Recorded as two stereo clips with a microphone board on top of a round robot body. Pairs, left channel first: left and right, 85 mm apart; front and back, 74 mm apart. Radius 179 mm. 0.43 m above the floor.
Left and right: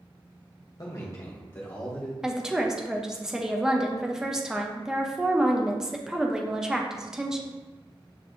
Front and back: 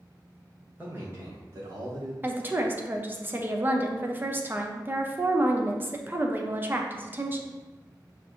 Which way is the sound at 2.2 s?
165° right.